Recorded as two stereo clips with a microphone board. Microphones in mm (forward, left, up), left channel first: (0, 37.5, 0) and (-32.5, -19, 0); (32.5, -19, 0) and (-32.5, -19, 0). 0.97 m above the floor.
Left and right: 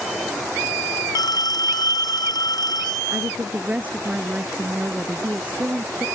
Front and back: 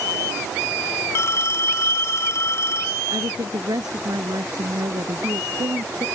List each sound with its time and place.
1.1 s a phone ringing: 50° left
3.1 s a woman speaking: 170° left